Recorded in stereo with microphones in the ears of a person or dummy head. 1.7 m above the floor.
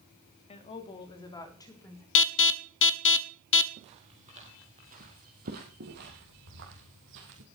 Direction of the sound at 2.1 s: 70° left (ahead or behind).